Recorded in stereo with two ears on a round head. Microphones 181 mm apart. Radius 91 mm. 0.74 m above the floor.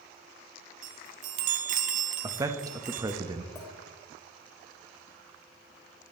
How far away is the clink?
About 2 m.